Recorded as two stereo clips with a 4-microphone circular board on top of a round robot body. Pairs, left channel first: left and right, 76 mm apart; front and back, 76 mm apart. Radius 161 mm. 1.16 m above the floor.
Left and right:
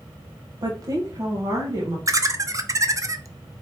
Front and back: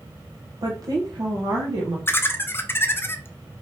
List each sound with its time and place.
0.6 s a woman speaking: 135° right, 0.8 m; by 2.0 s 140° right, 1.8 m
2.1 s laughter: 55° right, 0.8 m